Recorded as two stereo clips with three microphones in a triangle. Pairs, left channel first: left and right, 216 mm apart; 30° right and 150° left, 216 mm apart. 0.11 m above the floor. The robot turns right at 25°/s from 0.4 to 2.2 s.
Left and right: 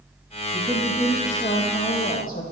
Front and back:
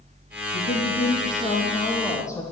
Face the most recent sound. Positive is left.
turn(degrees=45)